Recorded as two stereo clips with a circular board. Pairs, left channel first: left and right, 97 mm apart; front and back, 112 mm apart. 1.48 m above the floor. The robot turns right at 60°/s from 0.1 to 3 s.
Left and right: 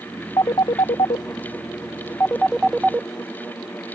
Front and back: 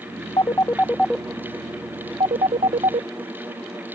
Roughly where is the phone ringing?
Ahead left.